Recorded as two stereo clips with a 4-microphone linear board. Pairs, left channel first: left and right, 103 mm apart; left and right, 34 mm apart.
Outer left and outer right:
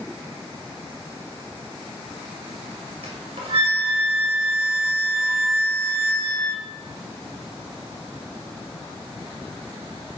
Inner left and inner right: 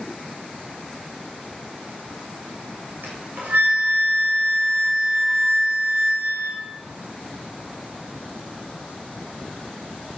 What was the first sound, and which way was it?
A flute, 60° right (ahead or behind).